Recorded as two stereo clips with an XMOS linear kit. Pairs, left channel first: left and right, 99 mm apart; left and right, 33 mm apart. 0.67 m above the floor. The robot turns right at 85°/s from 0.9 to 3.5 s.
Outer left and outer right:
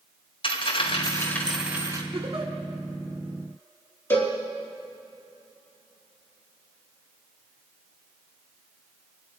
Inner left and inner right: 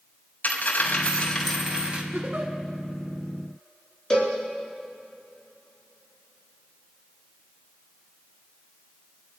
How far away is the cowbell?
About 4 m.